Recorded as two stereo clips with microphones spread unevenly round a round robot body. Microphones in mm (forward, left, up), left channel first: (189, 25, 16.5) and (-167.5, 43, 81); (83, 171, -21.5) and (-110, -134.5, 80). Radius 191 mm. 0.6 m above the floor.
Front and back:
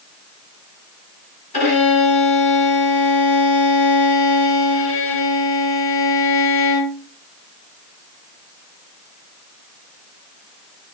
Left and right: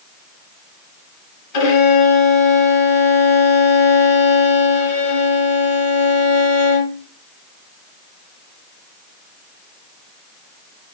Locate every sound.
1.5 s a violin: 65° left, 2.5 m